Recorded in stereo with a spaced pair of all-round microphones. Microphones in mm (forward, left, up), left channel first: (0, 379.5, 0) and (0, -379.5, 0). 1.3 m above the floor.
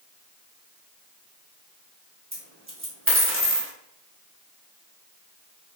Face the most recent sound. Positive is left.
turn(degrees=-15)  # may be behind; listen again after turning